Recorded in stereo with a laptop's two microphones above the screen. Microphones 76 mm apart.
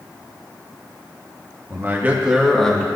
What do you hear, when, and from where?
1.7 s a man speaking: 35° right (ahead or behind), 1.5 m; by 2.9 s 15° left (ahead or behind), 1.4 m